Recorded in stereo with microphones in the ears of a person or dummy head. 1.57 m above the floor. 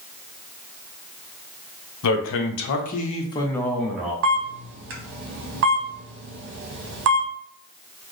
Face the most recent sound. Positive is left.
turn(degrees=-65)  # may be behind; listen again after turning